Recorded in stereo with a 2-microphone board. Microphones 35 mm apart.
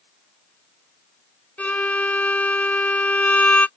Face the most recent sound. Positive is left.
turn(degrees=45)  # may be behind; listen again after turning